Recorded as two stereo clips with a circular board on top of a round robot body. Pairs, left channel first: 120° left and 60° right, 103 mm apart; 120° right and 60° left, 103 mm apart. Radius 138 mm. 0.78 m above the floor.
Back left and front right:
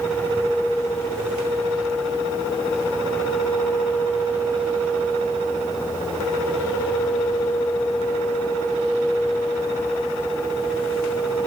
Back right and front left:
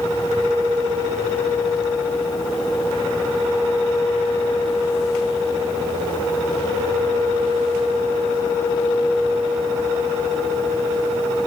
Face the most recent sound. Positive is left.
No sound to turn to.